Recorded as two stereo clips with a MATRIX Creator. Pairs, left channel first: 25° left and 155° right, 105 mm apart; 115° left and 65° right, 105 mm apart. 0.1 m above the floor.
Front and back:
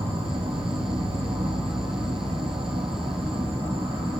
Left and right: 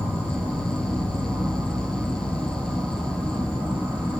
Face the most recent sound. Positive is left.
turn(degrees=-170)